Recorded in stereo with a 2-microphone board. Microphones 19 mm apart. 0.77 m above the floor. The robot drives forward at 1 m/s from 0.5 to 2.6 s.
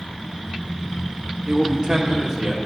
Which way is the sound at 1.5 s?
35° right (ahead or behind).